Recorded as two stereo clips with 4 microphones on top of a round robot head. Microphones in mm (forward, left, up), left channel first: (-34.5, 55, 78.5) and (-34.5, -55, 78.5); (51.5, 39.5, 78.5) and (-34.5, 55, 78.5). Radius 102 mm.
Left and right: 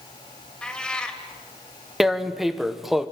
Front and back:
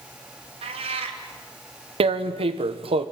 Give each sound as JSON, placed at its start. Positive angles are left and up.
{"t": 0.6, "sound": "a cat meowing", "azimuth_deg": 170, "distance_m": 2.0}
{"t": 2.0, "sound": "tearing paper", "azimuth_deg": 180, "distance_m": 1.4}